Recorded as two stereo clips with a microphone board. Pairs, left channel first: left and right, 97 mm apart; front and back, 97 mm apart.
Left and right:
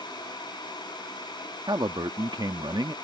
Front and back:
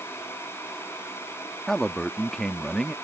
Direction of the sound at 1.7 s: 80° right.